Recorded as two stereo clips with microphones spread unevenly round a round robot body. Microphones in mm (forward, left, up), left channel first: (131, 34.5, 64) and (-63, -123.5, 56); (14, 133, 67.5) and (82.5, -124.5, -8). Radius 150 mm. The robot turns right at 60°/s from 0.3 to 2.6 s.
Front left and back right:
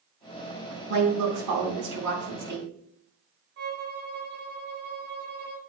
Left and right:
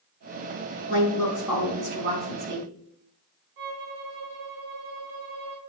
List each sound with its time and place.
0.9 s a woman speaking: 170° left, 3.5 m; by 2.7 s 90° right, 3.5 m
3.6 s a violin: 95° right, 3 m